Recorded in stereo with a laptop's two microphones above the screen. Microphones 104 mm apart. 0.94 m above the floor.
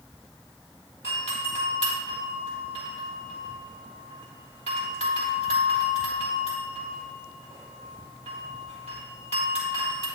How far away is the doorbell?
About 3.5 m.